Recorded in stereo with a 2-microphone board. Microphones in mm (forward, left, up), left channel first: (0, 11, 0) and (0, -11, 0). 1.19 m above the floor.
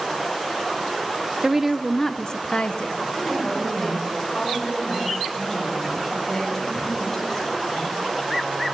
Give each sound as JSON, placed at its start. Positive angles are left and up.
{"t": 1.4, "sound": "a woman speaking", "side_deg": -25, "distance_m": 0.6}
{"t": 3.1, "sound": "a woman speaking", "side_deg": 15, "distance_m": 7.0}